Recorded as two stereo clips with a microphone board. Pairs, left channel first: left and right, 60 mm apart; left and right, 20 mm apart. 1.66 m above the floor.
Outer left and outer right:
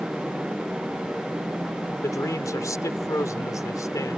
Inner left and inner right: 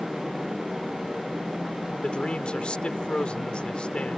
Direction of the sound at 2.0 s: 65° left (ahead or behind).